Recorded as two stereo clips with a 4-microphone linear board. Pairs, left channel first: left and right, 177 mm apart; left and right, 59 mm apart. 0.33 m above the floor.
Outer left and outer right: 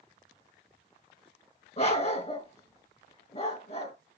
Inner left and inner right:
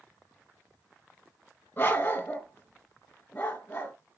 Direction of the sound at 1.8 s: 35° left (ahead or behind).